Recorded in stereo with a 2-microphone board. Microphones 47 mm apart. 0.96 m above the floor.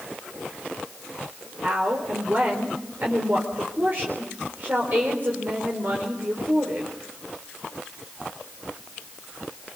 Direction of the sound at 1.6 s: 45° right (ahead or behind).